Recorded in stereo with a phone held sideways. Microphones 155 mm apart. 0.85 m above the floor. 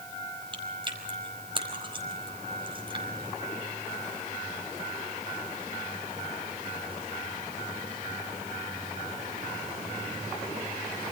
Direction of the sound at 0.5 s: 35° right (ahead or behind).